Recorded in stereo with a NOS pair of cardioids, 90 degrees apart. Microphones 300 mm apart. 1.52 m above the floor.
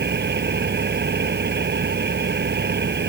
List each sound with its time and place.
0.0 s an engine running: 35° right